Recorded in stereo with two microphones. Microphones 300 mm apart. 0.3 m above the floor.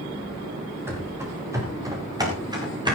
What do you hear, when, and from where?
0.9 s running footsteps: 10° right (ahead or behind), 7 m; by 3.0 s 15° right (ahead or behind), 7.5 m